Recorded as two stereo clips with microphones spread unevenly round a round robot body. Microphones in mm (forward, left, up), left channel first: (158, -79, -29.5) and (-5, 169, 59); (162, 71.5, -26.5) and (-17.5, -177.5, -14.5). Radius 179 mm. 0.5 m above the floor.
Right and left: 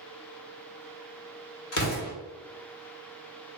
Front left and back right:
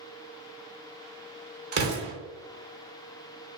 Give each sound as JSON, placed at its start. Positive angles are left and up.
{"t": 1.7, "sound": "an explosion", "azimuth_deg": -70, "distance_m": 1.2}